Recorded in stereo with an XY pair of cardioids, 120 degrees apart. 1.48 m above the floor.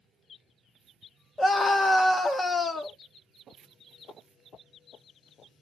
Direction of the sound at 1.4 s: 20° left.